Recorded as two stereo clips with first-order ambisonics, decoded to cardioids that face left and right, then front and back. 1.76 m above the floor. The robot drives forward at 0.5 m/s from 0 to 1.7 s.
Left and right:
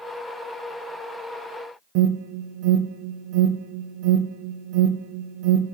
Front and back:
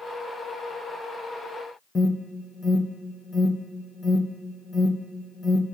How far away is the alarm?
About 0.5 m.